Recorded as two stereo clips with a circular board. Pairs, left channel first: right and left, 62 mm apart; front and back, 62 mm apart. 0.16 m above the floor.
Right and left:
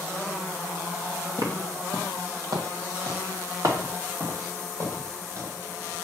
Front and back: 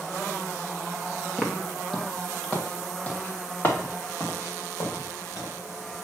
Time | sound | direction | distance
1.4 | footsteps | 90° left | 1.7 m